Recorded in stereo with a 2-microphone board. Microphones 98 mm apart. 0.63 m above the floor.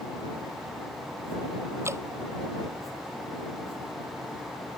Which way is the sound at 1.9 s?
25° right (ahead or behind).